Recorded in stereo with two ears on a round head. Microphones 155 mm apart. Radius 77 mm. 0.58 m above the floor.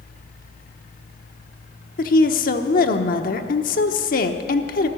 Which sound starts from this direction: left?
A woman speaking, at 2.0 s.